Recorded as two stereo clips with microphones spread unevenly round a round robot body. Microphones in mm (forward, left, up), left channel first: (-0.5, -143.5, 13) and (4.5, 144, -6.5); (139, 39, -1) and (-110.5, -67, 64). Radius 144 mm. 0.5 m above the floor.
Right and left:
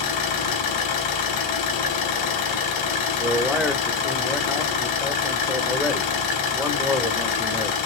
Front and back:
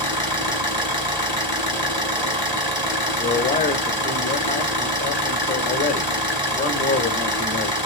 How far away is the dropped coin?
No dropped coin in this recording.